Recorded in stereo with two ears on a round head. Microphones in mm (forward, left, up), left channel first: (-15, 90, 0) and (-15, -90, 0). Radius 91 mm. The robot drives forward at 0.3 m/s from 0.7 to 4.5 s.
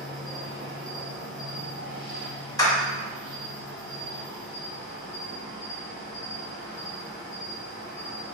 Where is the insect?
Centre (ahead or behind), 1.1 m.